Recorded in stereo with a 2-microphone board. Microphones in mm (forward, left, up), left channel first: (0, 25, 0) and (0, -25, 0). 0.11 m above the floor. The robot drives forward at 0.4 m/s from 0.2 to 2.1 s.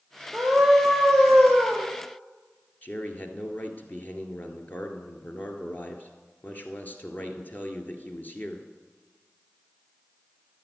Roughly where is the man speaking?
Left.